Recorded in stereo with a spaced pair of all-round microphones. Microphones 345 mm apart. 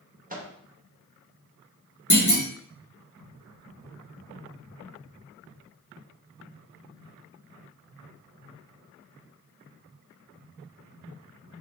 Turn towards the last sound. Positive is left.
turn(degrees=55)  # may be behind; listen again after turning